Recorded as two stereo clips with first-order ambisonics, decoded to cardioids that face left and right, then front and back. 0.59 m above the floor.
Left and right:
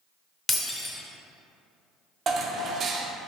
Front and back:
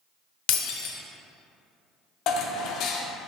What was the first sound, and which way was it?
Breaking glass, 15° left.